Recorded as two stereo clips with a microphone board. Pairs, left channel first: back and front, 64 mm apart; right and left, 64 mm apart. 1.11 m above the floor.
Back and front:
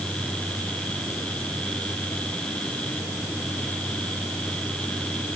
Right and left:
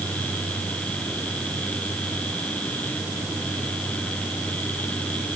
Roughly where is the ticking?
I don't hear ticking.